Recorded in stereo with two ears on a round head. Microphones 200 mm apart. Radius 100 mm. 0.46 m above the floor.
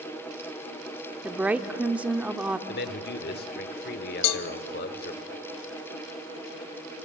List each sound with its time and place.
1.2 s a woman speaking: 5° right (ahead or behind), 0.8 m
2.7 s a man speaking: 45° left (ahead or behind), 1.2 m
4.2 s a cowbell: 75° left (ahead or behind), 0.8 m